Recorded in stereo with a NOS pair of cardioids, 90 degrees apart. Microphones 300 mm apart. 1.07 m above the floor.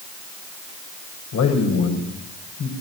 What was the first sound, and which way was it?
A man speaking, 60° left.